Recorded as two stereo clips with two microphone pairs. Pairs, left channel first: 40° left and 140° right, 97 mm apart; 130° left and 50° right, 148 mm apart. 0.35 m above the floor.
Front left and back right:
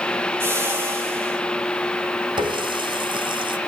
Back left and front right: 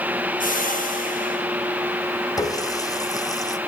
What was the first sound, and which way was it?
A whoosh, 155° left.